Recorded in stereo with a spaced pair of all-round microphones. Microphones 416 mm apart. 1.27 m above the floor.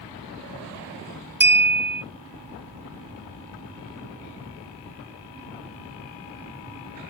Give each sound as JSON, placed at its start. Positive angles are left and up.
{"t": 1.4, "sound": "a clink", "side_deg": -25, "distance_m": 0.5}